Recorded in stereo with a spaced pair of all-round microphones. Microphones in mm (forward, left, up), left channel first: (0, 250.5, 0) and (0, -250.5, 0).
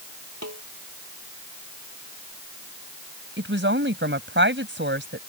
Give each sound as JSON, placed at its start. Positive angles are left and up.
{"t": 0.4, "sound": "a snare drum", "side_deg": -30}
{"t": 3.4, "sound": "a woman speaking", "side_deg": -20}